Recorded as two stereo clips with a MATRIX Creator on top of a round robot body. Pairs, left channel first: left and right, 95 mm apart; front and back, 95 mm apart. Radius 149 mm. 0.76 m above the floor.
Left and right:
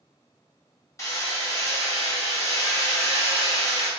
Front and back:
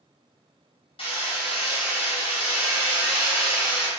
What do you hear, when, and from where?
1.0 s hammering: 30° left, 2.5 m